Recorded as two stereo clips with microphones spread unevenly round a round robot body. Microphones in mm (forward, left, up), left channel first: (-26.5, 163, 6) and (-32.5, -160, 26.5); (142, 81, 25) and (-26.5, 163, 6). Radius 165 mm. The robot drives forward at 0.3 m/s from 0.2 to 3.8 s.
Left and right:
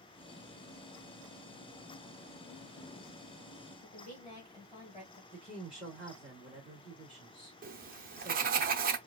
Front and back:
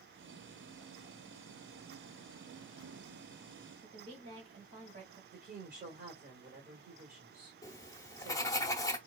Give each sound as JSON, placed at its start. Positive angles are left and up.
{"t": 3.8, "sound": "a woman speaking", "azimuth_deg": 160, "distance_m": 2.5}
{"t": 5.3, "sound": "a woman speaking", "azimuth_deg": 175, "distance_m": 1.7}
{"t": 7.6, "sound": "writing", "azimuth_deg": -80, "distance_m": 0.6}